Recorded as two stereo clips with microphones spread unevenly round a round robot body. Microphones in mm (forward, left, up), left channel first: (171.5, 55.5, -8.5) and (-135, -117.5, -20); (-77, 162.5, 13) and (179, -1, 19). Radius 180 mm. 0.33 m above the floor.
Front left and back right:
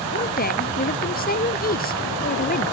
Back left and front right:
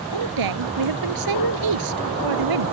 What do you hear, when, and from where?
0.1 s a woman speaking: 35° right